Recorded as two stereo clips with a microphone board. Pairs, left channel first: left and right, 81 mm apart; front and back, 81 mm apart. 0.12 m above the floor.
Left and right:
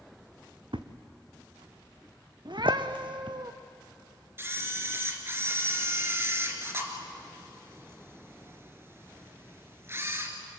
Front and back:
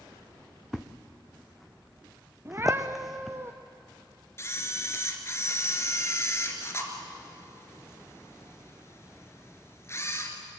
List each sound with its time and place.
0.7 s a thud: 90° right, 1.2 m
2.5 s a cat meowing: 120° right, 1.4 m
4.4 s a camera shutter: 40° right, 2 m